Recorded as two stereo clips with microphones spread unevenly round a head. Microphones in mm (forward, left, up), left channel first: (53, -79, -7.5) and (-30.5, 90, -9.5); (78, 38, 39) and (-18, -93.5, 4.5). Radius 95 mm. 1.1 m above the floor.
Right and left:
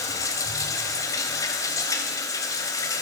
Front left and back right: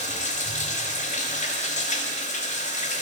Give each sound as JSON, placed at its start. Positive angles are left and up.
{"t": 0.0, "sound": "running water", "azimuth_deg": 10, "distance_m": 3.5}